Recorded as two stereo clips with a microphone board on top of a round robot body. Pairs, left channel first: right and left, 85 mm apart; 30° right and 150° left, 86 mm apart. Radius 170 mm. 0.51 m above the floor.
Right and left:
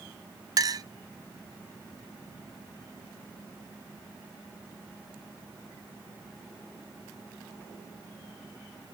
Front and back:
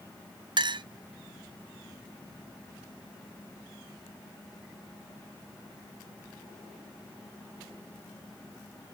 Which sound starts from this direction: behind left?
A clink, at 0.6 s.